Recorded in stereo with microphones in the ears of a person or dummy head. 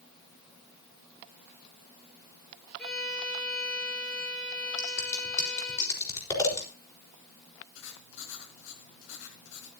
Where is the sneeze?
No sneeze in this recording.